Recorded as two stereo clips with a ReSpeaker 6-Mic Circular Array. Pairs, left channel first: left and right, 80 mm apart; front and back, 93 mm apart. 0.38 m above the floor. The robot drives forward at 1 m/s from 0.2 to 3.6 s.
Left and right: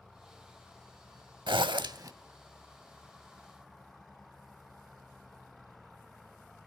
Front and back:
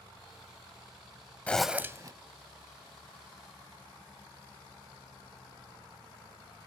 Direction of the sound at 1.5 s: 75° right.